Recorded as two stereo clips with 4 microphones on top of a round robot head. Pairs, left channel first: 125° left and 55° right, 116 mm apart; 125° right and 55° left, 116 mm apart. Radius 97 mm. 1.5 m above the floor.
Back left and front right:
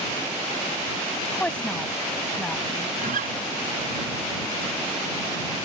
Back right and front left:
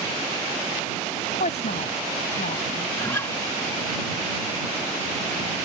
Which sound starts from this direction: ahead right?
A guitar, at 3.0 s.